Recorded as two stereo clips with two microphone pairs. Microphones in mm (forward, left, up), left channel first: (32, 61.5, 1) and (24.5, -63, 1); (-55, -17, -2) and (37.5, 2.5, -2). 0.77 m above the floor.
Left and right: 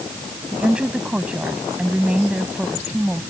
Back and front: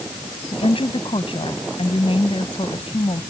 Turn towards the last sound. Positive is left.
turn(degrees=-175)